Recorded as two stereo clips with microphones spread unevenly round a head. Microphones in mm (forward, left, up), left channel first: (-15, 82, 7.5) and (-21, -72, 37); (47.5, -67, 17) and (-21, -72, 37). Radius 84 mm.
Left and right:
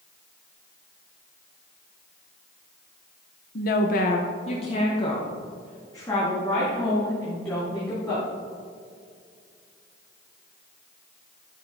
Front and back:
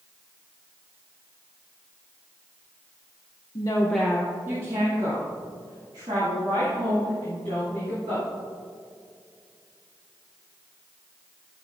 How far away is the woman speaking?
About 0.7 m.